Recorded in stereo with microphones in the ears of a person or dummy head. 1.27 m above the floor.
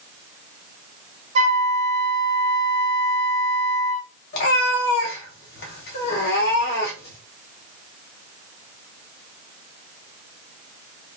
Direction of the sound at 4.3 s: 60° left (ahead or behind).